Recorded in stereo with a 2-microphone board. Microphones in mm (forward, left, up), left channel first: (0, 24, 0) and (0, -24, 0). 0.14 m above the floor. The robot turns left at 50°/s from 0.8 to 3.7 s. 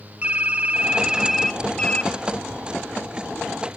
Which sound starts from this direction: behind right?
Typing on a keyboard, at 0.2 s.